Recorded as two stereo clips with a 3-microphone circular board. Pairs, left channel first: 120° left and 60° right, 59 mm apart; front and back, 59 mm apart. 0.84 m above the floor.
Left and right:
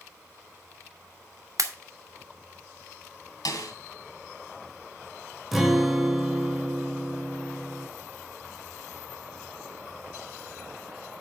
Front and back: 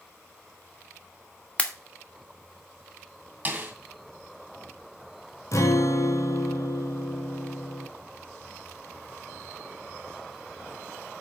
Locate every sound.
1.6 s a pop: 70° right, 1.3 m
3.5 s a snare drum: 120° left, 2.5 m
5.5 s a guitar: 25° left, 1.7 m